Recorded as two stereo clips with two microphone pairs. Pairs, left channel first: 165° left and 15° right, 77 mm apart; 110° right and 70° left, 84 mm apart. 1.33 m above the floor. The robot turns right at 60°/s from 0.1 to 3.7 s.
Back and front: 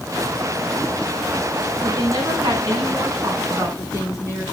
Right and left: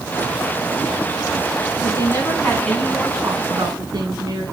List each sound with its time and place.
1.8 s a woman speaking: 75° right, 9.5 m; by 4.4 s 40° left, 9.5 m